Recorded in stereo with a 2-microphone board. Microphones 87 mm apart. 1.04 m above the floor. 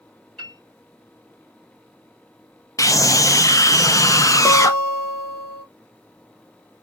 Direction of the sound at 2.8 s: 40° left (ahead or behind).